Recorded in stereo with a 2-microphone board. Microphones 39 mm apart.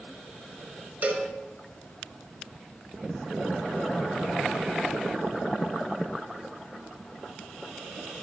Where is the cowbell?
50° right (ahead or behind), 0.9 m.